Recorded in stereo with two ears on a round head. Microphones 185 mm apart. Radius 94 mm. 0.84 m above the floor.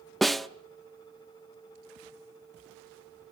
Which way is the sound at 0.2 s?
Centre (ahead or behind).